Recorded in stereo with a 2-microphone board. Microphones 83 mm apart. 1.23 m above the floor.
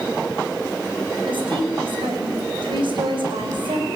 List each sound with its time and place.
1.3 s a woman speaking: 80° right, 6 m